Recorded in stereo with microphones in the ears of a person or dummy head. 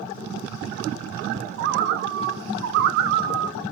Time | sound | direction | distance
1.6 | a bird | 60° right (ahead or behind) | 0.9 m